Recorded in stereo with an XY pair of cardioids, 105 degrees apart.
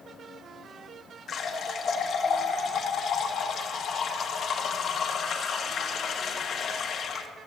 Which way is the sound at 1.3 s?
55° left.